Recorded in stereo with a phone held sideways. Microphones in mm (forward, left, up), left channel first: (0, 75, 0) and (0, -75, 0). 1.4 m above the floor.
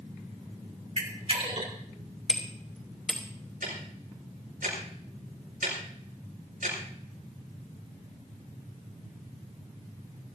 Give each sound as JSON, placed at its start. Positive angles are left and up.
{"t": 1.0, "sound": "a camera shutter", "side_deg": -50, "distance_m": 3.0}
{"t": 2.3, "sound": "hammering", "side_deg": 0, "distance_m": 3.5}
{"t": 3.6, "sound": "ticking", "side_deg": -80, "distance_m": 7.0}